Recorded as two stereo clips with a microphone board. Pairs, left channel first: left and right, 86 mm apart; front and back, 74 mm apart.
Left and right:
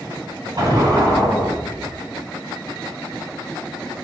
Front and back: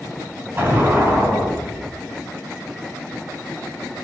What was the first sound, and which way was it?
An explosion, 125° right.